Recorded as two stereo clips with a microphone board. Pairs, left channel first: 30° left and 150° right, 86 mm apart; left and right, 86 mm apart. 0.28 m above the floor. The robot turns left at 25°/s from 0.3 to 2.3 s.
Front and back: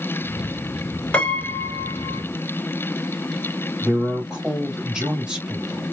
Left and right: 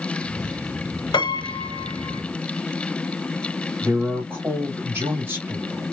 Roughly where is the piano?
Left.